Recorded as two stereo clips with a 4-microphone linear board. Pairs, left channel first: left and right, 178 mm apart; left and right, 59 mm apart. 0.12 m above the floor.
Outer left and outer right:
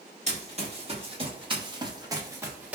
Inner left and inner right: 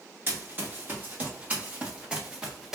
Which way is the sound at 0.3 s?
40° right (ahead or behind).